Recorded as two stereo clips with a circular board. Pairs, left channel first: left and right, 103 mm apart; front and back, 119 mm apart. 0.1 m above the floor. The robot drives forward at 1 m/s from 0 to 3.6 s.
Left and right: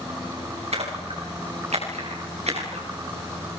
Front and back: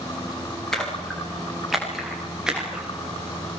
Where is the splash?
85° right, 9.5 m; by 2.9 s 100° right, 10 m.